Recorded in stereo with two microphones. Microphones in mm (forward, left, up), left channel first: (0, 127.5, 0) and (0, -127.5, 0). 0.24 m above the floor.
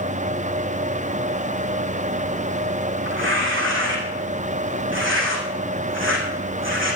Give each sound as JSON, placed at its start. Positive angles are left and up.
{"t": 3.0, "sound": "tearing paper", "side_deg": -50, "distance_m": 4.0}